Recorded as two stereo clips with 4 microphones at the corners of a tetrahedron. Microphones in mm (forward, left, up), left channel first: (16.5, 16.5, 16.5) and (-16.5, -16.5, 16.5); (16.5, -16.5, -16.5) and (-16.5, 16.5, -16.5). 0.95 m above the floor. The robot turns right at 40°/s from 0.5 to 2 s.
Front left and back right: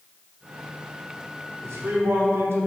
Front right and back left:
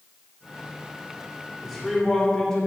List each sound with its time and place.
1.6 s a man speaking: 135° right, 3 m; by 2.7 s 120° right, 3 m